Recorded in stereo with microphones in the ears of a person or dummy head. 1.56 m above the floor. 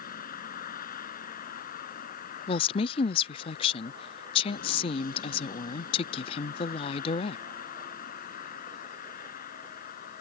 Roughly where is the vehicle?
Left.